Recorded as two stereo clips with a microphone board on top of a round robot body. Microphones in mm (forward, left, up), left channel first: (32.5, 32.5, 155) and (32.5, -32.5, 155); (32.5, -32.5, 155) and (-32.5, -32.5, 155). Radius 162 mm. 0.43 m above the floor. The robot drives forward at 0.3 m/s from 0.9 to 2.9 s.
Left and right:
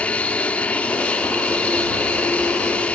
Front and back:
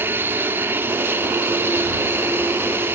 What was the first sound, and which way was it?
An aircraft, 150° left.